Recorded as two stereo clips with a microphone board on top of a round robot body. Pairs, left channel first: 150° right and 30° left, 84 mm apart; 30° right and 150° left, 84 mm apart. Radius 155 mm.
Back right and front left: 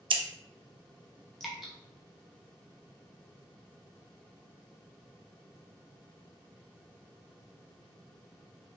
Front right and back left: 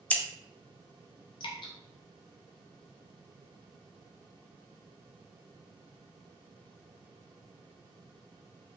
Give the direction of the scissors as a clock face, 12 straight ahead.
11 o'clock.